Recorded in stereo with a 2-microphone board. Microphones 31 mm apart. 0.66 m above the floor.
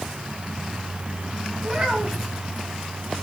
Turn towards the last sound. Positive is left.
turn(degrees=-5)  # may be behind; listen again after turning